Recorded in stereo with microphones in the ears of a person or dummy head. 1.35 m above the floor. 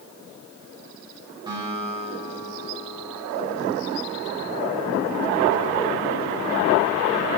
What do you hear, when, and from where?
1.5 s a guitar: 20° right (ahead or behind), 2.5 m